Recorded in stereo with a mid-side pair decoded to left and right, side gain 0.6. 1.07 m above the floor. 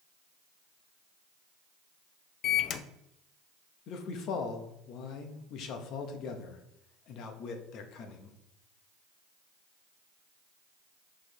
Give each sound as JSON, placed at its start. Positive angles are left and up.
{"t": 2.4, "sound": "a microwave", "azimuth_deg": 55, "distance_m": 0.6}
{"t": 3.9, "sound": "a man speaking", "azimuth_deg": 60, "distance_m": 1.2}